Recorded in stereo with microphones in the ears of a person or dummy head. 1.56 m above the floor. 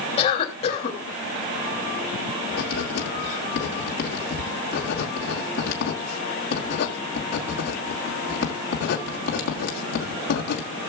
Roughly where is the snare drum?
I don't hear a snare drum.